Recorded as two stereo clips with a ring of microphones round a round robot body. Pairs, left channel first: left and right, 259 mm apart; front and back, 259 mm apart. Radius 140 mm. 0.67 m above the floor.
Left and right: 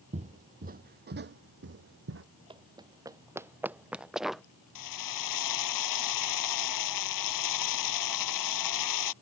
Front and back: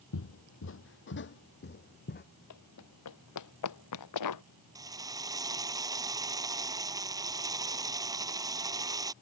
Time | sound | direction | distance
0.1 | footsteps | 25° right | ?
2.5 | running footsteps | 20° right | ?
4.8 | a drill | 100° left | ?